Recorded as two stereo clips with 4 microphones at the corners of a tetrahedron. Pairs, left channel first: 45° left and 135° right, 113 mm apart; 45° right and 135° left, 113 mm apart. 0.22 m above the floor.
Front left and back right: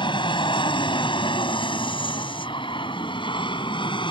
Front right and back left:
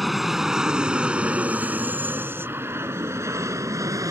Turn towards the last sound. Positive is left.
turn(degrees=80)